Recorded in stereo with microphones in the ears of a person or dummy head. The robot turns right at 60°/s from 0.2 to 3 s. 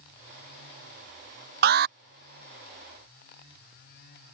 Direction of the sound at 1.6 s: 40° right (ahead or behind).